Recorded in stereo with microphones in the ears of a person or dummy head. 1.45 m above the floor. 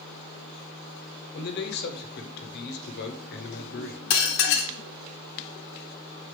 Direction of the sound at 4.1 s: 55° left (ahead or behind).